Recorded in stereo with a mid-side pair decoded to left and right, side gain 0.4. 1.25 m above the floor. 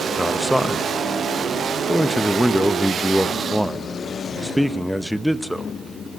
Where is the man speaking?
5° left, 1.3 m.